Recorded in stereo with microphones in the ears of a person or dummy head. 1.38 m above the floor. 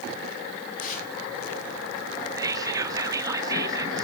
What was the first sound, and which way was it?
Tearing paper, 50° left (ahead or behind).